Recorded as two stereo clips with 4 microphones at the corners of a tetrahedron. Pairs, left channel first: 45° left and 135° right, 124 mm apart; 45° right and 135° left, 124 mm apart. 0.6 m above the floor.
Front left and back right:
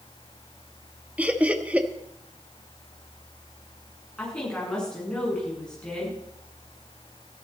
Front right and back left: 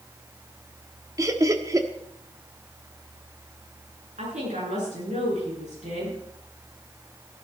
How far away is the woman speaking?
About 9 m.